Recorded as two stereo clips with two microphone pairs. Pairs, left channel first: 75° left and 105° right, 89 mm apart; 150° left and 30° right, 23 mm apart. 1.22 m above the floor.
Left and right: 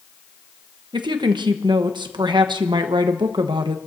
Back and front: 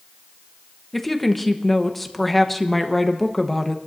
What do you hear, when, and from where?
0.9 s a woman speaking: 135° right, 1.1 m